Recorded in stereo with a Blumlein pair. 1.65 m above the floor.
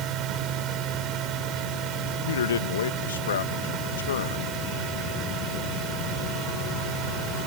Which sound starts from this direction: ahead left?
A man speaking, at 2.3 s.